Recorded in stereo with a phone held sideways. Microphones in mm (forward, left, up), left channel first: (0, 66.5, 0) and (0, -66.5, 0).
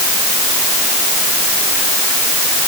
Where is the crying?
No crying in this recording.